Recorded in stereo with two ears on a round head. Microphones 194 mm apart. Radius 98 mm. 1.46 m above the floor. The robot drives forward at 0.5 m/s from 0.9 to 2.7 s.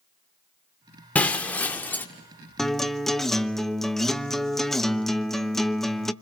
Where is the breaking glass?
5° left (ahead or behind), 1.5 m; by 2.1 s 10° left (ahead or behind), 1.2 m.